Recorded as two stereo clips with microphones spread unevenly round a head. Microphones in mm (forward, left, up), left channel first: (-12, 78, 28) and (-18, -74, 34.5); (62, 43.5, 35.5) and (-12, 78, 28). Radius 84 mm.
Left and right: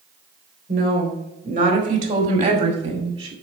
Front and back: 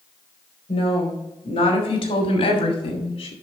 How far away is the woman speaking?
About 3.5 m.